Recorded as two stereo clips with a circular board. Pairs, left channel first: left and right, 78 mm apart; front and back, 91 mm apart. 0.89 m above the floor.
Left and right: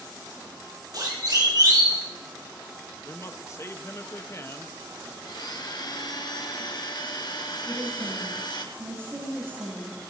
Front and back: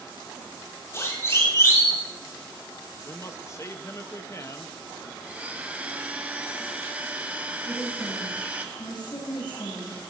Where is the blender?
105° left, 1.6 m.